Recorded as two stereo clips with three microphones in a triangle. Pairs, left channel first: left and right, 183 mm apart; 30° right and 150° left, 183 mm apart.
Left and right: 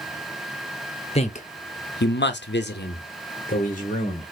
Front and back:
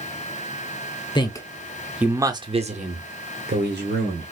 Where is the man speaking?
35° left, 0.8 m; by 4.3 s 140° left, 1.3 m.